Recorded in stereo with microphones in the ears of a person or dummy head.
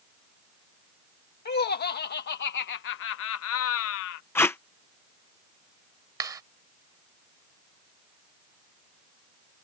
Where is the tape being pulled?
15° left (ahead or behind).